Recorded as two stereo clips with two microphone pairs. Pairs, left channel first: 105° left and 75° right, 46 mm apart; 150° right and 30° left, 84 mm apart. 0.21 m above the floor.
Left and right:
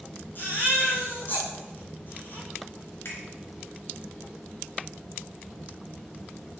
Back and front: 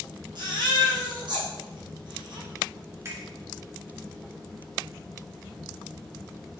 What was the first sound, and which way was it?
A baby crying, 60° left.